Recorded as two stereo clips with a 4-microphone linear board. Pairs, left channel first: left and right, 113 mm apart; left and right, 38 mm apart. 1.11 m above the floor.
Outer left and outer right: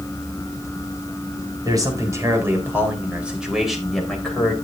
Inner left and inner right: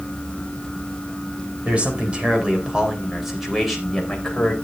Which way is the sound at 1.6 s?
35° right (ahead or behind).